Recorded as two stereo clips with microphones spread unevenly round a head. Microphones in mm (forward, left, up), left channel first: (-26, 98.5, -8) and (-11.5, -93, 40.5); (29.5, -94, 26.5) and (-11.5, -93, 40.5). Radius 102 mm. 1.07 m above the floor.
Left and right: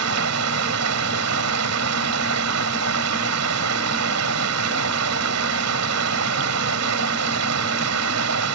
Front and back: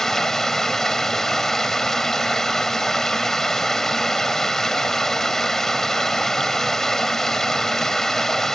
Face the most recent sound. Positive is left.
turn(degrees=-85)